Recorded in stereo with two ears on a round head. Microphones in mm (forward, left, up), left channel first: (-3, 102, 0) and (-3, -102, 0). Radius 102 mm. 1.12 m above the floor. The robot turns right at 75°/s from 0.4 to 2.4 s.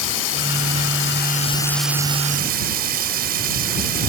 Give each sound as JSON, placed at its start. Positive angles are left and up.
{"t": 0.0, "sound": "running water", "azimuth_deg": 75}